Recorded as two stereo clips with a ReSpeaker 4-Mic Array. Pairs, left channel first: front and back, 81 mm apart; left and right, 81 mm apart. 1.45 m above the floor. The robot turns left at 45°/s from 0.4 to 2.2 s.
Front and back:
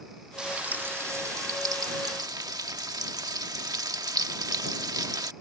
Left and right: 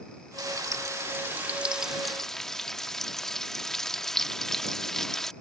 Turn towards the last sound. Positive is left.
turn(degrees=175)